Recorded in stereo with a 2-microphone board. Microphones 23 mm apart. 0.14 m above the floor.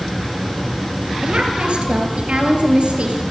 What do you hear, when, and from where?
1.2 s a woman speaking: 50° right (ahead or behind), 2.5 m; by 3.2 s 65° right (ahead or behind), 3 m